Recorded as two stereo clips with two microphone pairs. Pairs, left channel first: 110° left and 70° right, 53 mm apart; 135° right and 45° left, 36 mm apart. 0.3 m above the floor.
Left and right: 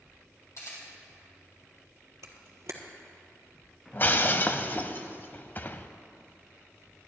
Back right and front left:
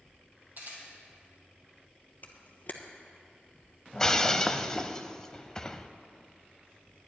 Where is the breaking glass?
160° left, 0.5 m.